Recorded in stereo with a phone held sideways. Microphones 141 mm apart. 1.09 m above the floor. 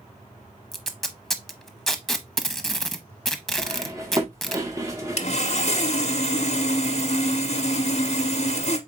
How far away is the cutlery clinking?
About 1.3 m.